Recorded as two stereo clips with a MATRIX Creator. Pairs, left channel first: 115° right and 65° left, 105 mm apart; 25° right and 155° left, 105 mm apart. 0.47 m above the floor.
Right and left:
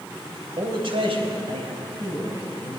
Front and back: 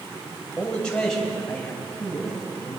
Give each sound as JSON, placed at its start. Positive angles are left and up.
{"t": 0.6, "sound": "a man speaking", "azimuth_deg": 55, "distance_m": 3.0}